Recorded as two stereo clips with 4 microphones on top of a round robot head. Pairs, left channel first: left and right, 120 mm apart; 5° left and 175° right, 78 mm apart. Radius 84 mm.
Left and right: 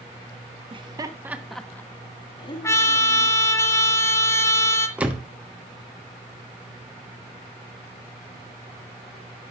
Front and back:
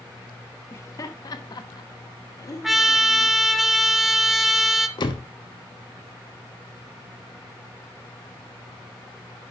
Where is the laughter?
50° right, 1.2 m; by 3.4 s 55° left, 2.5 m.